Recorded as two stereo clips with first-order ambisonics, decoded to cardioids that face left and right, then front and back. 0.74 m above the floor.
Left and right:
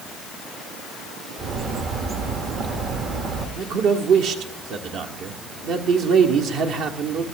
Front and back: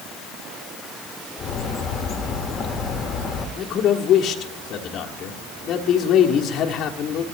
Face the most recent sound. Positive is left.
turn(degrees=-50)